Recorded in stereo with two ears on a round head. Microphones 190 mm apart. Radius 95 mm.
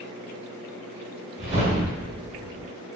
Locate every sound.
1.4 s a whoosh: 50° right (ahead or behind), 1.4 m